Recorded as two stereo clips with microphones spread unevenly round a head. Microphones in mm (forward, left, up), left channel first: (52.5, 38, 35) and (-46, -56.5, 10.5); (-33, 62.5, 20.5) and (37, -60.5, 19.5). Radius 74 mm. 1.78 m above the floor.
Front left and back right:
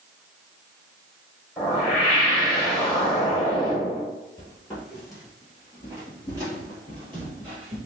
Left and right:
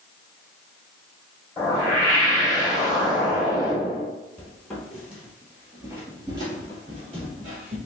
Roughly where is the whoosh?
Left.